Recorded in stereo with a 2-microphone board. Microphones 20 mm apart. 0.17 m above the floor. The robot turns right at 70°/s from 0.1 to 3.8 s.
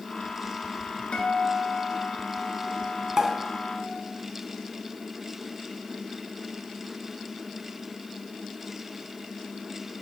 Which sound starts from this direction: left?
A guitar, at 1.1 s.